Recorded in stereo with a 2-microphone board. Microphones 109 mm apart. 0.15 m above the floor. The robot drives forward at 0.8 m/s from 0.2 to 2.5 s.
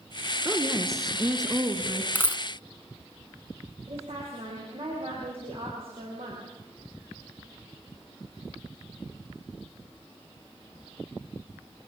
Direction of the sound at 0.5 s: 25° right (ahead or behind).